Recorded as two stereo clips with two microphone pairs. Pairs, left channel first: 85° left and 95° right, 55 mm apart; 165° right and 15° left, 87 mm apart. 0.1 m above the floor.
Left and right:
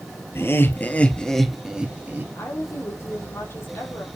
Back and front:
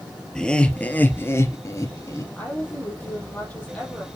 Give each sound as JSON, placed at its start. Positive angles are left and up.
{"t": 0.3, "sound": "laughter", "azimuth_deg": 110, "distance_m": 2.0}
{"t": 2.4, "sound": "a woman speaking", "azimuth_deg": 120, "distance_m": 4.0}